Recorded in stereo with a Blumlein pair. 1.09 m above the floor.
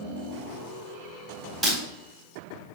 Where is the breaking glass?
5° right, 4 m.